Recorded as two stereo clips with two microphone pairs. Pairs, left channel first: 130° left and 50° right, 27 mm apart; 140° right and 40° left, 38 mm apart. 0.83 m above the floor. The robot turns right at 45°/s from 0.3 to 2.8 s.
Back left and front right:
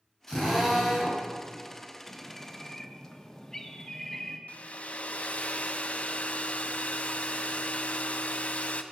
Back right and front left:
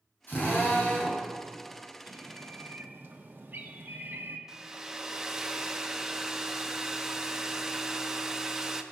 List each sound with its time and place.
0.3 s a drill: 165° right, 3 m; by 1.2 s 125° right, 3 m
2.1 s a bird: 25° left, 1.0 m; by 4.4 s 60° left, 1.0 m
4.5 s a hair dryer: 110° left, 0.6 m